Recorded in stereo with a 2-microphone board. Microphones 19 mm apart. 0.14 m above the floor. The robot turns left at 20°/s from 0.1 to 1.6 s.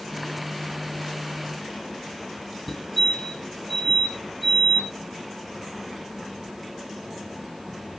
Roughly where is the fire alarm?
Centre.